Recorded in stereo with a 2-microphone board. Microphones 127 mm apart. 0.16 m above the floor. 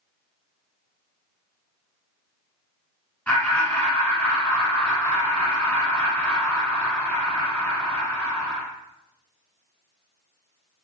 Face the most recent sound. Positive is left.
turn(degrees=10)  # may be behind; listen again after turning